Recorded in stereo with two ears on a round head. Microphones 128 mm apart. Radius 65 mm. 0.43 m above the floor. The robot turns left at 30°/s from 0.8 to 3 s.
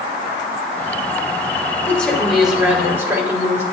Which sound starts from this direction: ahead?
A woman speaking, at 1.9 s.